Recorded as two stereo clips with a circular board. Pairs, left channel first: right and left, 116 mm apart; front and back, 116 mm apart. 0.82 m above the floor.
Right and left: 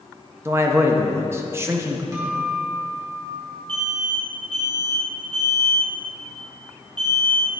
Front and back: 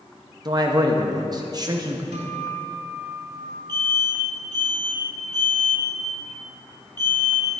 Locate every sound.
0.5 s a man speaking: 145° left, 0.7 m
2.1 s a guitar: 155° left, 2 m
3.7 s an alarm: 130° left, 2 m